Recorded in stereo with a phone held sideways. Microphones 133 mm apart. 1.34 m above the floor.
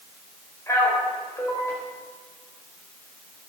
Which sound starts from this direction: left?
A man speaking, at 0.7 s.